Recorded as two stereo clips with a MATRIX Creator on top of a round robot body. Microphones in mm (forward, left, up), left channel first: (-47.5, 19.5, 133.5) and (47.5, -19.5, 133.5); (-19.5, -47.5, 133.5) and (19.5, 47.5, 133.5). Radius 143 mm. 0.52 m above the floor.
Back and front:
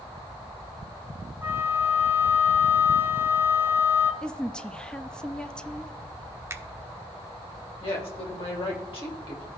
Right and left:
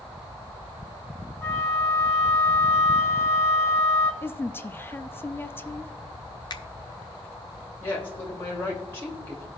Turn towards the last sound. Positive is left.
turn(degrees=180)